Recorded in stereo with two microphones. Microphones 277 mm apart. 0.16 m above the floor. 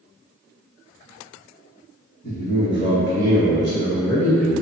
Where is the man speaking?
35° left (ahead or behind), 1.7 m; by 4.6 s 40° left (ahead or behind), 2.5 m.